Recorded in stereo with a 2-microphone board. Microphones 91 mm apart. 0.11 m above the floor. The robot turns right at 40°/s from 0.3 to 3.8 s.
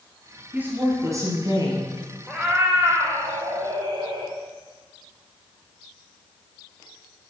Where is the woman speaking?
155° right, 2 m; by 1.9 s 100° right, 2 m.